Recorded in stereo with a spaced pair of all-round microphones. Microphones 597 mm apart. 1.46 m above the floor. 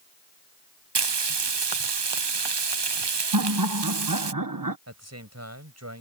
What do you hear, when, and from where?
0.9 s frying: 45° right (ahead or behind)
3.3 s laughter: 35° right (ahead or behind)
4.9 s a man speaking: 25° right (ahead or behind)